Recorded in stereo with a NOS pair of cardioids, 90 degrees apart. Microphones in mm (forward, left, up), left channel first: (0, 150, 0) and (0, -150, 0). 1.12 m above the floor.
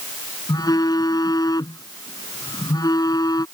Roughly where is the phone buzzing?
Ahead.